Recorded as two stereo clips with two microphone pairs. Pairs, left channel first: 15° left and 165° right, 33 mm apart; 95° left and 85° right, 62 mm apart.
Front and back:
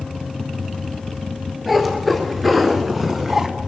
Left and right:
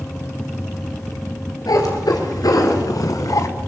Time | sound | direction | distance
1.7 | a cat meowing | 110° left | 3 m